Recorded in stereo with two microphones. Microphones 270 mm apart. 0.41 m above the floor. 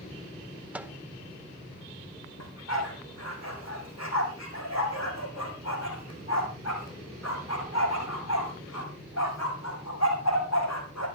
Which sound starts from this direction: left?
A dog barking, at 2.4 s.